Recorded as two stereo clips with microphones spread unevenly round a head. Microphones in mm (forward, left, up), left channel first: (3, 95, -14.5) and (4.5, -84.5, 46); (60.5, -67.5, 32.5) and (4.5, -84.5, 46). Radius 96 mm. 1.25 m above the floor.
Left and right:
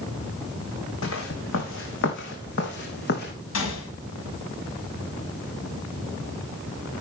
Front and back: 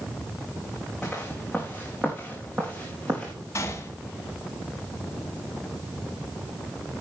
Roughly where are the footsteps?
Left.